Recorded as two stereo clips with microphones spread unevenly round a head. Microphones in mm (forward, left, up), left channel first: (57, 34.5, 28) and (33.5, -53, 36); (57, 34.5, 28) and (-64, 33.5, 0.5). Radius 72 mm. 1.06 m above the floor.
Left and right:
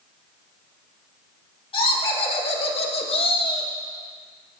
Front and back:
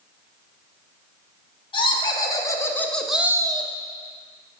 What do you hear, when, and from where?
1.7 s laughter: 50° left, 2 m; by 3.7 s 135° left, 1.0 m